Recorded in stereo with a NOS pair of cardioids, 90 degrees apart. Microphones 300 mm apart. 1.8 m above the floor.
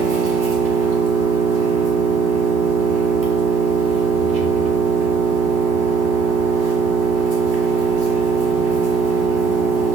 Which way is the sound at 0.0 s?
60° right.